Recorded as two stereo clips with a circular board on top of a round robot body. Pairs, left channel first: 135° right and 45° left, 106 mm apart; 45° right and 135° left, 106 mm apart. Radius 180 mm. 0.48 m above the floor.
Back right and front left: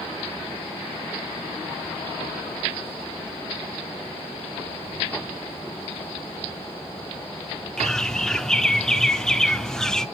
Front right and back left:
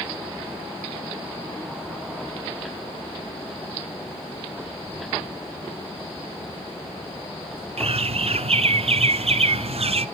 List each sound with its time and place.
4.9 s keys jangling: 75° left, 6 m
7.8 s a bird: 140° left, 0.9 m